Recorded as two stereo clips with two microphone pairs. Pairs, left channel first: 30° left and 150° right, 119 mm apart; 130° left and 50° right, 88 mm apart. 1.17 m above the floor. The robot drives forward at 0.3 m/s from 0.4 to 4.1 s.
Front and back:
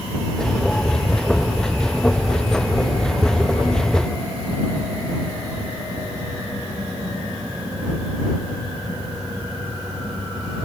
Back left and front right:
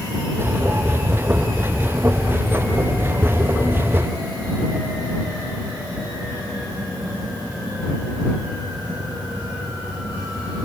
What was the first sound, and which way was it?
Only background noise.